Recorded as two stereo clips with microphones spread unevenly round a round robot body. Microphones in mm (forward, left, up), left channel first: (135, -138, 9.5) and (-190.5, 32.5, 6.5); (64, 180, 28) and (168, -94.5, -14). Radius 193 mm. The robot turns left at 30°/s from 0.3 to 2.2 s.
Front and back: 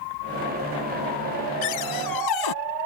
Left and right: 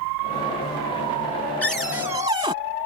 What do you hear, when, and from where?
1.6 s a cupboard door: 20° left; by 2.5 s 5° left